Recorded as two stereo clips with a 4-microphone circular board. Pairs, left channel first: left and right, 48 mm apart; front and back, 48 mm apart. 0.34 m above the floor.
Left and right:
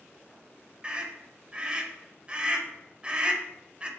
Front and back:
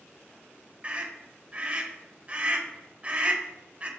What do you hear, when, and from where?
0.8 s a scream: 140° right, 1.2 m